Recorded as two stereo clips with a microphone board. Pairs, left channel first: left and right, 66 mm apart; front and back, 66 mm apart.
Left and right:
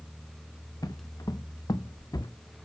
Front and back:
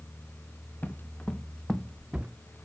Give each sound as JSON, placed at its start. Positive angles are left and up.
{"t": 0.8, "sound": "footsteps", "azimuth_deg": 65, "distance_m": 1.9}